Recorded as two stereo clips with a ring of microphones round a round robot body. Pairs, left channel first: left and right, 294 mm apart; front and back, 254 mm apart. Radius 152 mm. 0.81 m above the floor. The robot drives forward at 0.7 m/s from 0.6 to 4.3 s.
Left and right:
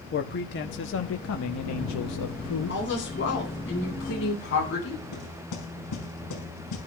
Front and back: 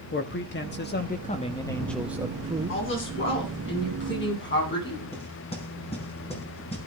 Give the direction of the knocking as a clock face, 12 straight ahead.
10 o'clock.